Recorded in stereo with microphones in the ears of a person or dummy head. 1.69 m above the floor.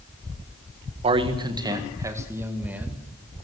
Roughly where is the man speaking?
Right.